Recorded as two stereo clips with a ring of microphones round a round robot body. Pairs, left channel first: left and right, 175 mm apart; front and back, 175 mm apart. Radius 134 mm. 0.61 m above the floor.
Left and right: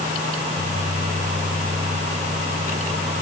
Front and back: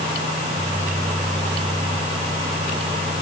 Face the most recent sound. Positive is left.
No sound to turn to.